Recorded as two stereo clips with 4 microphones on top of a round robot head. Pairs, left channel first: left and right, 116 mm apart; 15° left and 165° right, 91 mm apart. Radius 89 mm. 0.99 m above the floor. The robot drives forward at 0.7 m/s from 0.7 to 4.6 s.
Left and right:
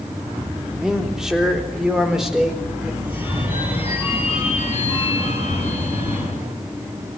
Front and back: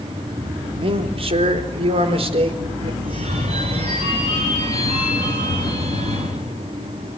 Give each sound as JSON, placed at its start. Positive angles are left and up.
{"t": 0.7, "sound": "a man speaking", "azimuth_deg": -175, "distance_m": 3.0}
{"t": 3.0, "sound": "a phone ringing", "azimuth_deg": -165, "distance_m": 4.0}